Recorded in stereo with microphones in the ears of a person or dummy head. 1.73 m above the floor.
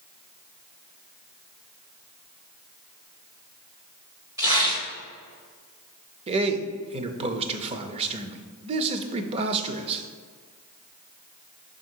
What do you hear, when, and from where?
4.4 s tearing paper: 15° right (ahead or behind), 1.3 m
6.3 s a man speaking: 30° right (ahead or behind), 0.6 m